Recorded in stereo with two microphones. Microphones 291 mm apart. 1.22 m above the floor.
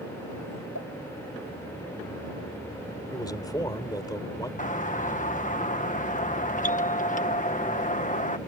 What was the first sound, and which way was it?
A pop, 70° left (ahead or behind).